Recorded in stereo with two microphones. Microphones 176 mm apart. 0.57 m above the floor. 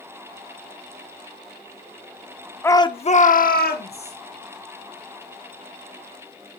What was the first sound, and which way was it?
A shout, 15° left (ahead or behind).